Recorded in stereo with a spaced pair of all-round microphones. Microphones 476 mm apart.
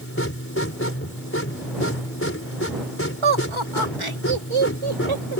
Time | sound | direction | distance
0.0 | a machine running | 25° left (ahead or behind) | ?
3.2 | laughter | 85° right | ?